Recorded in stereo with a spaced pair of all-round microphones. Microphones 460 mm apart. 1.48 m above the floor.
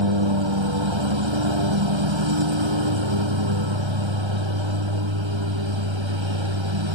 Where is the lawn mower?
75° right (ahead or behind).